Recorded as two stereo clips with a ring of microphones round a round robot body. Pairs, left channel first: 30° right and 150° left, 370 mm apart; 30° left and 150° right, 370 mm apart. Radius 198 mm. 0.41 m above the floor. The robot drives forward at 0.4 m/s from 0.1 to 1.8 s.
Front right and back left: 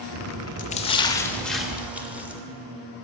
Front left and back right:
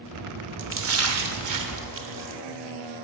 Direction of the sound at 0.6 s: 95° right.